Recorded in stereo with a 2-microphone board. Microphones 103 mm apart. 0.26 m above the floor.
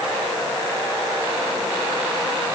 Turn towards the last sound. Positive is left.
No sound to turn to.